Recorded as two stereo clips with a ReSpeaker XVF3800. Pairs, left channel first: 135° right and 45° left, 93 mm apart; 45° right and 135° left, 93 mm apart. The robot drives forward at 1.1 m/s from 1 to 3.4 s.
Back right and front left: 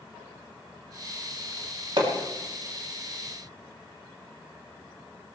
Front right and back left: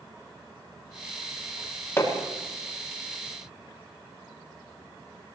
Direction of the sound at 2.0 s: 15° left.